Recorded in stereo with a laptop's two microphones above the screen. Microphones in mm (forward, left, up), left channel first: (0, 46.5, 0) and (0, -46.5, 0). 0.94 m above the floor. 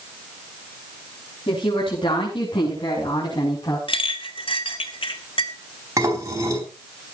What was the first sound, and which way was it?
A woman speaking, 70° left (ahead or behind).